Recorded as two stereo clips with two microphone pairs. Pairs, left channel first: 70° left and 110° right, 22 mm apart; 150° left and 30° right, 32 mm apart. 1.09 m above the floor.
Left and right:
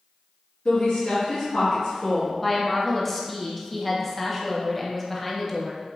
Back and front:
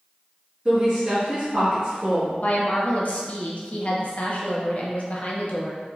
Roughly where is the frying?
I don't hear frying.